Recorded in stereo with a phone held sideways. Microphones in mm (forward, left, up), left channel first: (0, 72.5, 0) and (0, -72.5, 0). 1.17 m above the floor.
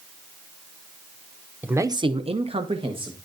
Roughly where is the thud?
No thud in this recording.